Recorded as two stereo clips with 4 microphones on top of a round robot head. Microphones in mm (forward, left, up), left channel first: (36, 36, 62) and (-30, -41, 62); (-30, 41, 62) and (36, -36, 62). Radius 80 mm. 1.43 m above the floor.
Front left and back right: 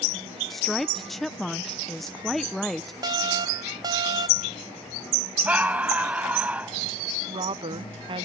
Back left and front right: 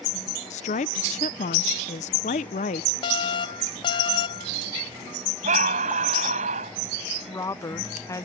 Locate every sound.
0.5 s a woman speaking: 140° left
3.0 s an alarm: 175° left
5.5 s a scream: 55° right
7.3 s a woman speaking: 170° right